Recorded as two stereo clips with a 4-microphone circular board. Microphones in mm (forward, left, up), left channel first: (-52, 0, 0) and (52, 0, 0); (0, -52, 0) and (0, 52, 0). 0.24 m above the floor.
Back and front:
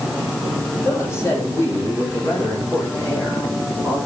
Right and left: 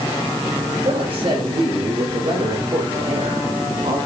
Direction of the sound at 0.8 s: 115° left.